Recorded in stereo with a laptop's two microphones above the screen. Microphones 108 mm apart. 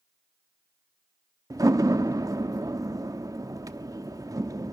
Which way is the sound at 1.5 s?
35° right (ahead or behind).